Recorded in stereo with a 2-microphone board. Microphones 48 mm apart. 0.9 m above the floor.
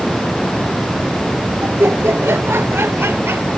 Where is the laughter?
65° right (ahead or behind); by 3.5 s 60° right (ahead or behind).